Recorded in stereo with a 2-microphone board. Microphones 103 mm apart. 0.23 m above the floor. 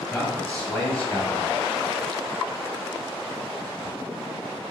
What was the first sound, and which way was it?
A man speaking, 15° left (ahead or behind).